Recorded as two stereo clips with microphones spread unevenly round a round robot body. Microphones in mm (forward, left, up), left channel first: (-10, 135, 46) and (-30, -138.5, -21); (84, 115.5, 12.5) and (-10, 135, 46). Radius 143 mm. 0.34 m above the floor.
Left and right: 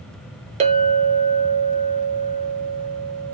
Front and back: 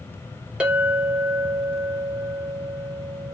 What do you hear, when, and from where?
0.6 s a clink: 90° right, 1.0 m